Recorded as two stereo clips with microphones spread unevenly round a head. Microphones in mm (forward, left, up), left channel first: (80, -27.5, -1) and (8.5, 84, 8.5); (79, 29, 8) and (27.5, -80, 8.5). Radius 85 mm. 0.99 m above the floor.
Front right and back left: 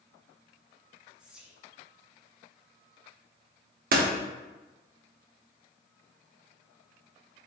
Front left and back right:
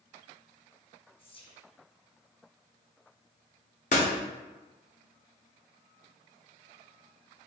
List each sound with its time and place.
1.2 s whispering: 35° left, 1.3 m
3.9 s a door slam: 115° left, 0.9 m